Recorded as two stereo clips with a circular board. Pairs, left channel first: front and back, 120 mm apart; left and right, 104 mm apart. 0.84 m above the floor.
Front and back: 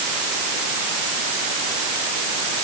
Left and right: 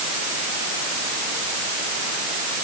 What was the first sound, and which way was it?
Only background noise.